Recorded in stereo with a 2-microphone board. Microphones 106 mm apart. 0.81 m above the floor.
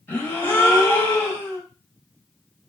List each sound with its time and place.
0.1 s a gasp: 20° left (ahead or behind), 0.6 m